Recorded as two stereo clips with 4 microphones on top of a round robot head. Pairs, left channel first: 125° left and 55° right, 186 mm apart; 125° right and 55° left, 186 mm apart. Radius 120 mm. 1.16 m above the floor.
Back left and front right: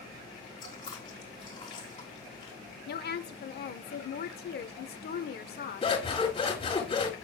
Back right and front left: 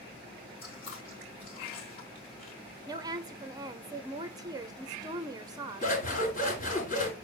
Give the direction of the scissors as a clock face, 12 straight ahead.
6 o'clock.